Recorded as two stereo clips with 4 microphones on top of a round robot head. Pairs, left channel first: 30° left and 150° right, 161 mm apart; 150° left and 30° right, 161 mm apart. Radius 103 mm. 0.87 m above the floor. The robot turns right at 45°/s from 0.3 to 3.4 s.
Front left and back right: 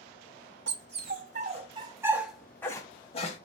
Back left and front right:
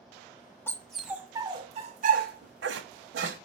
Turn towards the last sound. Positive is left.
turn(degrees=-10)